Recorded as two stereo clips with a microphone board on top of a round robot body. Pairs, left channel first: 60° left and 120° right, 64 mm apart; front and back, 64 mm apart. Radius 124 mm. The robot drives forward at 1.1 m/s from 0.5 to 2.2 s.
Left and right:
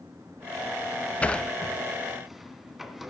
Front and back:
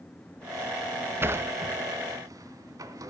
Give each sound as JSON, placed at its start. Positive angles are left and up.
{"t": 1.2, "sound": "a sliding door", "azimuth_deg": 130, "distance_m": 1.1}